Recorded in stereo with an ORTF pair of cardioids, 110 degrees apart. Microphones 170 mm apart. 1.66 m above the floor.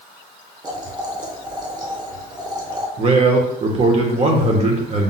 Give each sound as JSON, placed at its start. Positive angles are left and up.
{"t": 0.6, "sound": "boiling", "azimuth_deg": -25, "distance_m": 1.1}
{"t": 3.0, "sound": "a man speaking", "azimuth_deg": -40, "distance_m": 1.3}